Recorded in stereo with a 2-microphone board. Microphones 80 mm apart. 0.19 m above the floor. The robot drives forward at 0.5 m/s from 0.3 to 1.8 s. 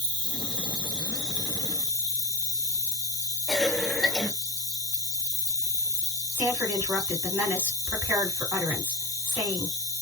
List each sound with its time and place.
0.0 s an insect: 65° right (ahead or behind), 1.3 m; by 10.0 s 45° right (ahead or behind), 1.7 m
3.5 s a cough: 5° left (ahead or behind), 1.0 m
6.3 s a woman speaking: 25° right (ahead or behind), 2.5 m